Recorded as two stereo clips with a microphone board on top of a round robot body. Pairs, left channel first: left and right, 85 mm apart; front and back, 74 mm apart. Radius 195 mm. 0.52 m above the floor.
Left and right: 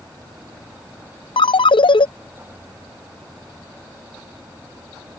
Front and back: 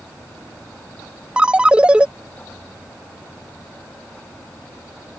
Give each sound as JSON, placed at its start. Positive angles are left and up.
{"t": 1.4, "sound": "a ringtone", "azimuth_deg": 105}